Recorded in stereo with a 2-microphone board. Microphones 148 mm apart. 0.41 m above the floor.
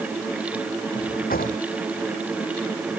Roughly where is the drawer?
Left.